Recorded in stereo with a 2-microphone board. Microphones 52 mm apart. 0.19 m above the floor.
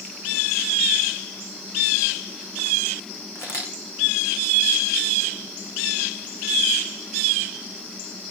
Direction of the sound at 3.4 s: 60° left (ahead or behind).